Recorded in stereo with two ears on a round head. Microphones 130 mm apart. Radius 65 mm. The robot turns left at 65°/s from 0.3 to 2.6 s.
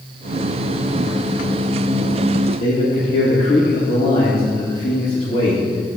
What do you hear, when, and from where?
2.6 s a man speaking: 50° left (ahead or behind), 1.6 m